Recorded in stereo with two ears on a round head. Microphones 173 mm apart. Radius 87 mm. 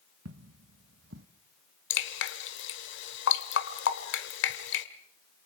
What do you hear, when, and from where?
0.2 s footsteps: 70° right (ahead or behind), 2 m; by 1.3 s 60° right (ahead or behind), 1.3 m
1.9 s dripping: 65° left (ahead or behind), 1.8 m